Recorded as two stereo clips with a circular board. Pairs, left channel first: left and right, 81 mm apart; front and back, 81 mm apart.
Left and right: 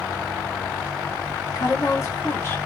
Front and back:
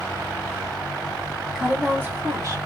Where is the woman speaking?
95° left, 1.0 m; by 2.6 s 145° left, 1.1 m.